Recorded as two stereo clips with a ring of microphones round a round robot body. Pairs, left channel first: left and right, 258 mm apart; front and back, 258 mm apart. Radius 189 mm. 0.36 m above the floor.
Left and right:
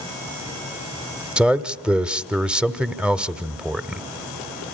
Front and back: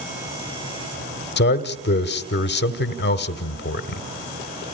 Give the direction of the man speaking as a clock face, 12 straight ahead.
12 o'clock.